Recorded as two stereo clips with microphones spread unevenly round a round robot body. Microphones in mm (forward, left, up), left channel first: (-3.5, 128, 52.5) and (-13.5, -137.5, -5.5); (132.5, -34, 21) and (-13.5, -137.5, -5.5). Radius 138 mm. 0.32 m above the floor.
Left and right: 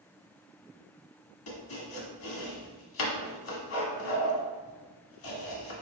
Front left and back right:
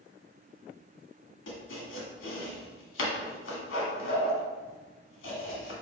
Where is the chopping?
45° left, 1.4 m.